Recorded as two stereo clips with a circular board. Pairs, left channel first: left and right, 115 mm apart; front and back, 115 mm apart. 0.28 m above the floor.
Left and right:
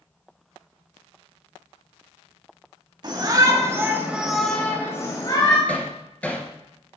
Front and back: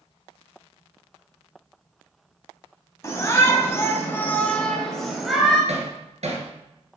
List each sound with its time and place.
3.0 s a shout: 55° right, 2.5 m; by 5.6 s 95° left, 2 m
5.7 s hammering: 170° left, 2 m